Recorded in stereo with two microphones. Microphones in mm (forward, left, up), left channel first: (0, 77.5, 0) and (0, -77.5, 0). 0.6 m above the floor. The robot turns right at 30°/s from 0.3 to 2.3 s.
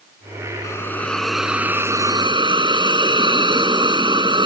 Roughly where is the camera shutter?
I don't hear a camera shutter.